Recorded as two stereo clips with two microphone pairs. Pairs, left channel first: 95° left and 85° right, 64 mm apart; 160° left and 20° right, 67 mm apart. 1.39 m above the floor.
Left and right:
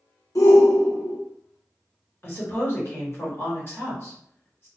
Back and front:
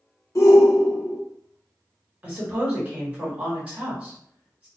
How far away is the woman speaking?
About 1.6 m.